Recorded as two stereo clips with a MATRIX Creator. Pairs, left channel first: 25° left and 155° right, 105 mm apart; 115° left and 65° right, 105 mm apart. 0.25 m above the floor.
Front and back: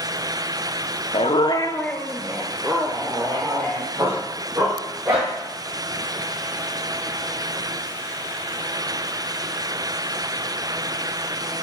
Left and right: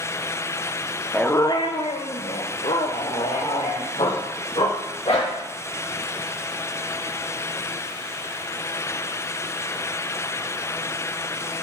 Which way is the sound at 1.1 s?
30° left.